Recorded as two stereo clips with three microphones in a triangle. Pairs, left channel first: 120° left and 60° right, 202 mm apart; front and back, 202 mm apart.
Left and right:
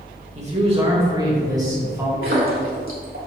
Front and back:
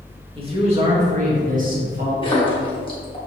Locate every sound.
0.3 s a man speaking: 115° right, 2.5 m; by 2.1 s 140° right, 2.5 m
2.2 s a splash: 65° right, 1.8 m